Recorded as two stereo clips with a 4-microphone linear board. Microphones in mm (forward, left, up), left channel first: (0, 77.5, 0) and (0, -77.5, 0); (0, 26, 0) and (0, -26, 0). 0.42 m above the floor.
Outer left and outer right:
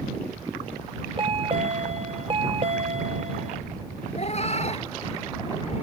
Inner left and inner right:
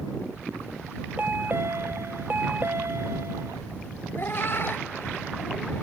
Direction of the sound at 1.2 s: 35° right (ahead or behind).